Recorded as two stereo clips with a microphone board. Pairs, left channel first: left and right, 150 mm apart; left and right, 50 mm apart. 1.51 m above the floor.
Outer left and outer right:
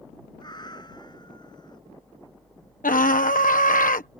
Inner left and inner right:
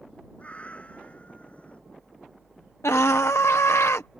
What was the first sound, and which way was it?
A cat meowing, 30° left (ahead or behind).